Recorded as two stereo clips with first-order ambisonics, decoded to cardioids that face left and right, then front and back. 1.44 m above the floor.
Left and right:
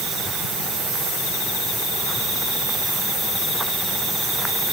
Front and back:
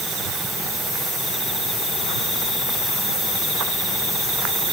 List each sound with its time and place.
Only background noise.